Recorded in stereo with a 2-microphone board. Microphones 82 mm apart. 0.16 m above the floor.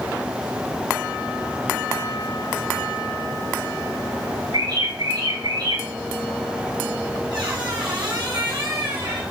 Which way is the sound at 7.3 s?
75° right (ahead or behind).